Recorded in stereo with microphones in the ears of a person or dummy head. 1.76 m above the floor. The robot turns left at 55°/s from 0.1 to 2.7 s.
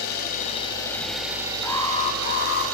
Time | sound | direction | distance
0.0 | an engine running | 55° left | 5.5 m
1.6 | an alarm | 170° left | 3.5 m